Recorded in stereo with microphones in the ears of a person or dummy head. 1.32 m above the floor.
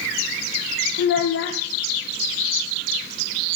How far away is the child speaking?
About 0.6 m.